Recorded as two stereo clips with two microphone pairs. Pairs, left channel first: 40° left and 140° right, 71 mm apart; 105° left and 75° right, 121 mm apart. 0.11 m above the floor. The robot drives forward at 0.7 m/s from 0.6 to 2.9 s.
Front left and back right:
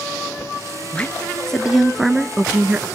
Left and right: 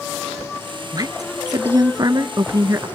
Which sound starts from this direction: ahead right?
A woman speaking, at 0.9 s.